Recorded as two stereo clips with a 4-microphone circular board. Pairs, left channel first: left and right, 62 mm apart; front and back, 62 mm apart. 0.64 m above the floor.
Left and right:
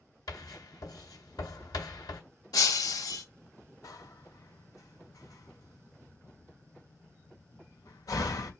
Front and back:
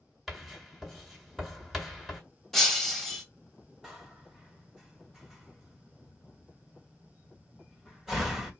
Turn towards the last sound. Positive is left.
turn(degrees=95)